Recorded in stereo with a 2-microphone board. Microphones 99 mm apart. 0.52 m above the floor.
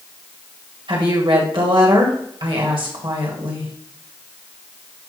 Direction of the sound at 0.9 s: 60° right (ahead or behind).